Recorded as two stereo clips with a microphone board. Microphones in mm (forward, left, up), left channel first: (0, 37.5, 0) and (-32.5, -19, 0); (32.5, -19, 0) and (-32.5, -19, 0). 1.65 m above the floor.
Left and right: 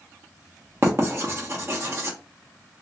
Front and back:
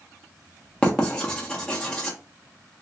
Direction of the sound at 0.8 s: 80° right.